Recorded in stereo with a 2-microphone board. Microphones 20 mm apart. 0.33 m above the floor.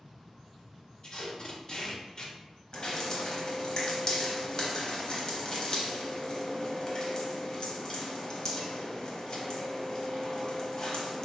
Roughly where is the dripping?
Left.